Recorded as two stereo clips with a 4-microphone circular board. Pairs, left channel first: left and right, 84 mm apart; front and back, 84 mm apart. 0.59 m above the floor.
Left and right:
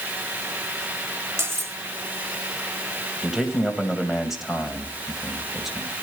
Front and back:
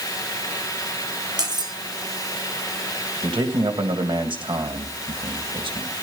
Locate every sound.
1.4 s cutlery clinking: 145° right, 2 m
3.2 s a man speaking: 175° right, 3 m